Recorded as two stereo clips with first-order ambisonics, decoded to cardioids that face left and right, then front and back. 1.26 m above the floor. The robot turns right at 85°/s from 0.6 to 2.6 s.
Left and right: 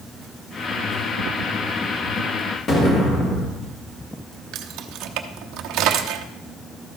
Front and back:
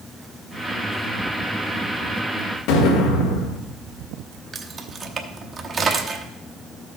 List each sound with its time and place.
2.7 s an explosion: 25° left, 2.0 m
4.5 s keys jangling: 115° right, 0.8 m